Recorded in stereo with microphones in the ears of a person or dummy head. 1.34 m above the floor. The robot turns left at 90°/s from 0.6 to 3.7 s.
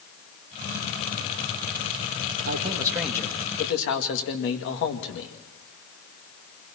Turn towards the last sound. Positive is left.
turn(degrees=120)